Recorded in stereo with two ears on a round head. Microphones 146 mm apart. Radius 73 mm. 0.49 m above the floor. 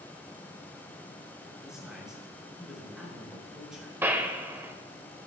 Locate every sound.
1.6 s a man speaking: 5° right (ahead or behind), 7 m
4.0 s a gunshot: 15° right (ahead or behind), 1.2 m